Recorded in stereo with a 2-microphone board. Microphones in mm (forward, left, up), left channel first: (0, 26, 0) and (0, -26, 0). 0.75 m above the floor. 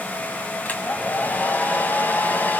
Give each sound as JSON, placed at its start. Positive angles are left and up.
{"t": 0.7, "sound": "a hair dryer", "side_deg": 35, "distance_m": 3.5}